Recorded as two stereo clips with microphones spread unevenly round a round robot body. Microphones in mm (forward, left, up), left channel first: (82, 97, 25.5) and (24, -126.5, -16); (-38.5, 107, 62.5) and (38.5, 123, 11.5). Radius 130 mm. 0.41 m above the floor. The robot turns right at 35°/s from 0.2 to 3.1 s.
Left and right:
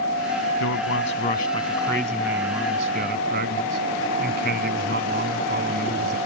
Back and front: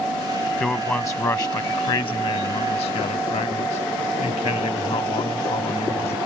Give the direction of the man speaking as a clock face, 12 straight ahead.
8 o'clock.